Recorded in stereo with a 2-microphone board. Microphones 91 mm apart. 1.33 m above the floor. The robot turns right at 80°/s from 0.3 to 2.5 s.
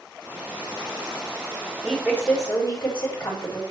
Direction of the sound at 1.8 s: Straight ahead.